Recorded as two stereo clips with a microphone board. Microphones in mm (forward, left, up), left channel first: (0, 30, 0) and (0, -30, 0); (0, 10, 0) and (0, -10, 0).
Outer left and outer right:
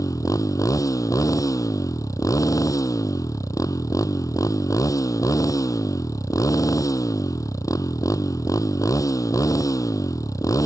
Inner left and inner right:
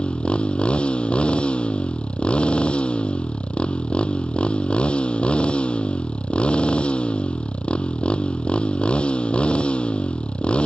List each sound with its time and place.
0.0 s a motorcycle: 70° left (ahead or behind)